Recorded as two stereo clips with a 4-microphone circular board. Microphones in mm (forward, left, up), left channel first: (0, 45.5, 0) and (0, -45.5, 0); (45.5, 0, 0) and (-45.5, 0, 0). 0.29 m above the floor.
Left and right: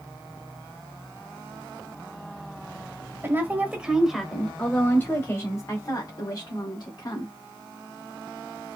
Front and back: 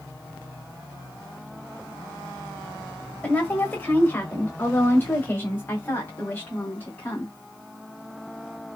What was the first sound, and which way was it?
A woman speaking, 60° right.